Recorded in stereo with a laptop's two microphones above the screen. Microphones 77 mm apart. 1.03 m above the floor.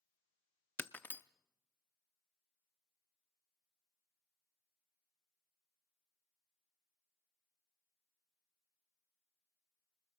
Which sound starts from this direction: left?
Breaking glass, at 0.8 s.